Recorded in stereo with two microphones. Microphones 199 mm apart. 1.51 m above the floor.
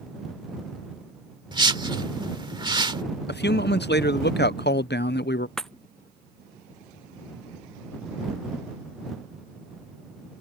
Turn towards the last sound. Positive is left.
turn(degrees=0)  # may be behind; listen again after turning